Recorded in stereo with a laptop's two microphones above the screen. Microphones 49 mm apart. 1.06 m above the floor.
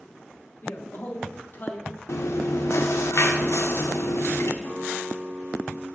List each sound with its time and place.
0.6 s a man speaking: 45° left (ahead or behind), 1.2 m
2.1 s chewing: 70° left (ahead or behind), 0.6 m
4.6 s a guitar: 45° left (ahead or behind), 1.5 m